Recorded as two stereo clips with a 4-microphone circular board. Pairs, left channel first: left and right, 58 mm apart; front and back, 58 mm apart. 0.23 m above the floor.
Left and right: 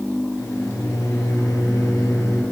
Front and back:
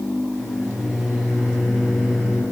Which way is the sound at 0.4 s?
100° left.